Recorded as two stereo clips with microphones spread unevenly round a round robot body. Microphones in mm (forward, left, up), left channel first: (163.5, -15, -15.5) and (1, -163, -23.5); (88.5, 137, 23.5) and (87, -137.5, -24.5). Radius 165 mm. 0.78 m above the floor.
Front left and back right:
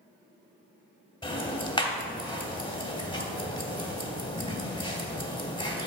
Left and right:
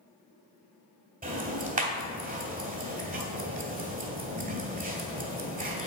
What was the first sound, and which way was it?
Ticking, 30° right.